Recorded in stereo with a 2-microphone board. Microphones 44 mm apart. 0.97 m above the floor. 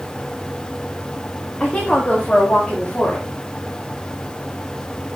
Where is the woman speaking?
25° left (ahead or behind), 1.6 m; by 3.3 s 30° left (ahead or behind), 2.5 m.